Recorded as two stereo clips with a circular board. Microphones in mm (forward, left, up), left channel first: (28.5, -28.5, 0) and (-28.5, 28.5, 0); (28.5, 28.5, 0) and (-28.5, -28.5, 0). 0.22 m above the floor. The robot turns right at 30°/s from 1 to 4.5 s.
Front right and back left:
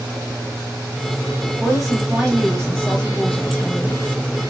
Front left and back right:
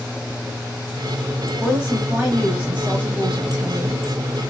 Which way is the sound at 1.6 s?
145° right.